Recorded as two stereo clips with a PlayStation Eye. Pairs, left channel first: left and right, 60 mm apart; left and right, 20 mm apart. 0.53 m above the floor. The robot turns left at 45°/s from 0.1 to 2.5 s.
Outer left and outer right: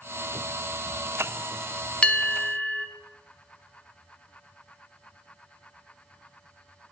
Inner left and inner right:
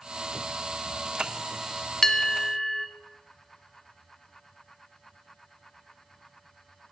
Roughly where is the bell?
Centre.